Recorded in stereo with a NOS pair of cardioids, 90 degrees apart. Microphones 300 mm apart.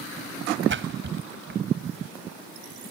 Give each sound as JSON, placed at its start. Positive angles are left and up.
{"t": 0.7, "sound": "a splash", "azimuth_deg": -40}